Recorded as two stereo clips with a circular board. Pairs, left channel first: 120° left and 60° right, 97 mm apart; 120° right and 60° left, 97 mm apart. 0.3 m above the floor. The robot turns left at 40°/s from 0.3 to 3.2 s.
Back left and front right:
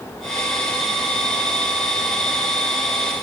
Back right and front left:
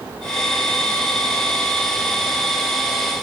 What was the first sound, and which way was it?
Only background noise.